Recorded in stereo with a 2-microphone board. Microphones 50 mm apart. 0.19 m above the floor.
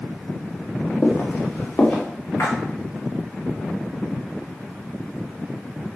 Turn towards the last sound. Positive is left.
turn(degrees=65)  # may be behind; listen again after turning